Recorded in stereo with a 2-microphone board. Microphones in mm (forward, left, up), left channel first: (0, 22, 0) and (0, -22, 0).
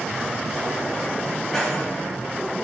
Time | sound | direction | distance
1.5 | keys jangling | 5° left (ahead or behind) | 4 m